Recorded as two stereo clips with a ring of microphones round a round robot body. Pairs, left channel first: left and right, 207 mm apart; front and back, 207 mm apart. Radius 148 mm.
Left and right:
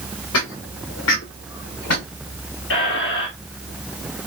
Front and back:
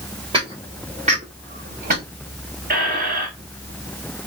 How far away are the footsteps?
About 2.5 m.